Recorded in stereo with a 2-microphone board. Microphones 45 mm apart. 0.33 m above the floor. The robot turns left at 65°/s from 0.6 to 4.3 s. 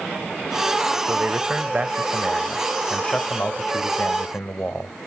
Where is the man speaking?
80° right, 1.1 m; by 4.9 s 70° left, 1.1 m.